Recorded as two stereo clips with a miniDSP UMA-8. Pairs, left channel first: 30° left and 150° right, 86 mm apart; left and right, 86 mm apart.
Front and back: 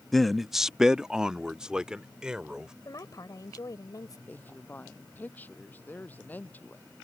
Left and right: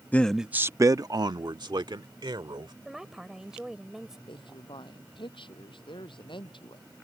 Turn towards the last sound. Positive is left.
turn(degrees=100)